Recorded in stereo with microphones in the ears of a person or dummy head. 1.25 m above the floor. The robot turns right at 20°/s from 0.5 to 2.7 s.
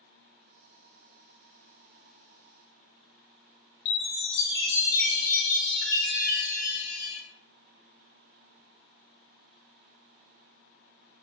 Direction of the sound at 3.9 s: 70° left (ahead or behind).